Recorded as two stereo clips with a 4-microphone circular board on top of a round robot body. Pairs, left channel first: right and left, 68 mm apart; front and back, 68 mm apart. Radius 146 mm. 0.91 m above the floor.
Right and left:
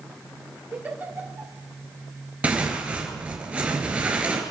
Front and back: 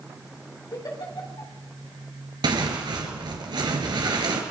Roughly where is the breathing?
I don't hear breathing.